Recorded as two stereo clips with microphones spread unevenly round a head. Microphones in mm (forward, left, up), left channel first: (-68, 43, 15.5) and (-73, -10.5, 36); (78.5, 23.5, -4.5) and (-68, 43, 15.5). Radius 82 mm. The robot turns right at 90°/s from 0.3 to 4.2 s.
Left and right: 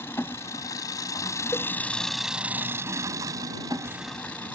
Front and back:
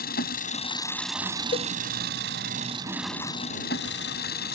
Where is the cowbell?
30° left; by 1.7 s 45° left.